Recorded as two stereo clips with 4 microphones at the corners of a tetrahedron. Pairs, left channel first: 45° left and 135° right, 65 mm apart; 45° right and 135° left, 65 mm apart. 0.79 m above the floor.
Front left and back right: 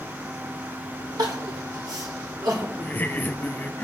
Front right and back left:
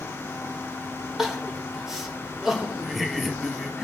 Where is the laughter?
45° left, 0.6 m.